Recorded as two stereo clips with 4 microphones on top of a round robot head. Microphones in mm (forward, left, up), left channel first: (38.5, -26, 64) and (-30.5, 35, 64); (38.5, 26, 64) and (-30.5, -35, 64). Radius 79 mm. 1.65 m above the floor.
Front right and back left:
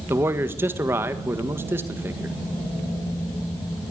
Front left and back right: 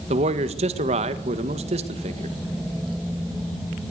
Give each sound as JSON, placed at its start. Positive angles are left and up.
{"t": 0.1, "sound": "a man speaking", "azimuth_deg": -150, "distance_m": 1.8}